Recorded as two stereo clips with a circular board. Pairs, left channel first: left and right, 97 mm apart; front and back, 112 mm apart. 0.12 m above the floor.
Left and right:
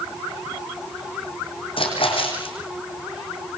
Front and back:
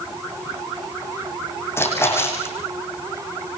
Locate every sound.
1.8 s a splash: 70° left, 6 m